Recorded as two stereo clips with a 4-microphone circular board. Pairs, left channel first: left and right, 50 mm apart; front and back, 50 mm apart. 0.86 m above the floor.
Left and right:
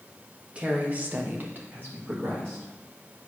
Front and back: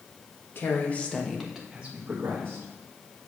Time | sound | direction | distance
0.6 | a woman speaking | 25° right | 1.3 m